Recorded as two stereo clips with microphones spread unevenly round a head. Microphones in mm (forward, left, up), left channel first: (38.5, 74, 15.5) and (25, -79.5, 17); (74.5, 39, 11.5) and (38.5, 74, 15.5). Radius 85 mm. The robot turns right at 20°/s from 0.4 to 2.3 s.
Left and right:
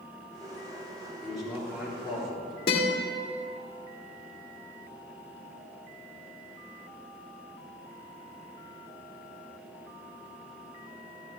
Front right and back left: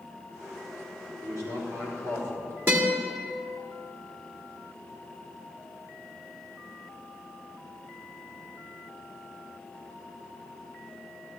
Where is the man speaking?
175° left, 4.5 m; by 2.6 s 165° right, 4.5 m.